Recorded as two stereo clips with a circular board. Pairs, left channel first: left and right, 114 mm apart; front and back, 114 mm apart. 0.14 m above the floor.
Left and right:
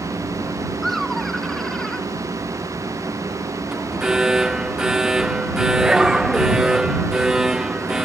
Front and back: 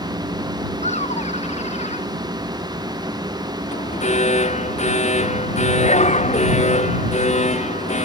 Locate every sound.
0.8 s laughter: straight ahead; by 2.1 s 5° left
3.7 s an alarm: 5° right